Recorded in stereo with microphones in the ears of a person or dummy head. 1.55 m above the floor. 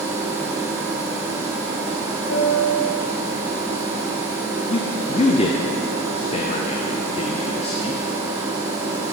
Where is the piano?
70° left (ahead or behind), 0.9 m.